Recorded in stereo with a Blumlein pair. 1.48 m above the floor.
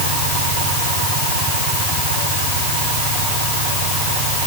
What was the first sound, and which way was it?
Only background noise.